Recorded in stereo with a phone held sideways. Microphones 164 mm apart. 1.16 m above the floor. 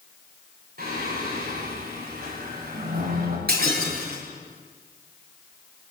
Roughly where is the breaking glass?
Right.